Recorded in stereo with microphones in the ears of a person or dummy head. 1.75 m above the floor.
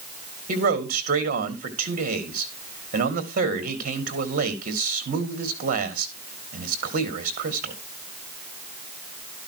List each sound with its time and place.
0.5 s a man speaking: 45° right (ahead or behind), 2.5 m